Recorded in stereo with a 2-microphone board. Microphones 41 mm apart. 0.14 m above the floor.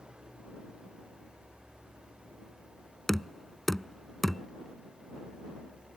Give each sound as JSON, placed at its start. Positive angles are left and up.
{"t": 0.0, "sound": "an engine running", "side_deg": -25}
{"t": 3.1, "sound": "knocking", "side_deg": 5}